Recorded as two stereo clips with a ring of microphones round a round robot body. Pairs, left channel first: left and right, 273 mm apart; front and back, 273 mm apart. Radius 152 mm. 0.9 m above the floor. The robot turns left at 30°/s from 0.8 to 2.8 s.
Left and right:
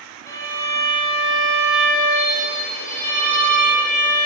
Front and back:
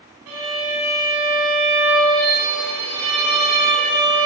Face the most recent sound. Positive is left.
turn(degrees=110)